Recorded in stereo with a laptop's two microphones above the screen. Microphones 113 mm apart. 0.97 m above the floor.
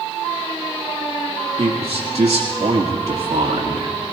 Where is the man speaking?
70° right (ahead or behind), 1.8 m.